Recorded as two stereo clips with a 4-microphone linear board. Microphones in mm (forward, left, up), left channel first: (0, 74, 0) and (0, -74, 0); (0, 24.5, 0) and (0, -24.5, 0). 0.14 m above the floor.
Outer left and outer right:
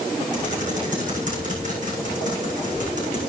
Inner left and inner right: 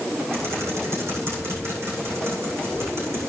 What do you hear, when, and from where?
0.3 s typing on a keyboard: 60° right (ahead or behind), 7.5 m